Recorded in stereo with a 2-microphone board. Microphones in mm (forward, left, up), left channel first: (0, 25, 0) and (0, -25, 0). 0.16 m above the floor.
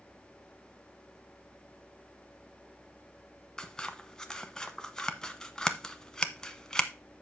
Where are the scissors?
10° left (ahead or behind), 0.9 m.